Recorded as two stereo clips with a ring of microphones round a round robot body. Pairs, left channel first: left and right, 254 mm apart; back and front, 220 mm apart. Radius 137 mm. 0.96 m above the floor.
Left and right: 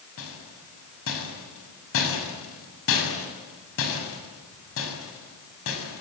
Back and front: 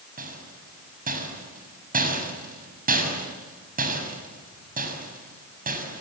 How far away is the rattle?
About 6.5 m.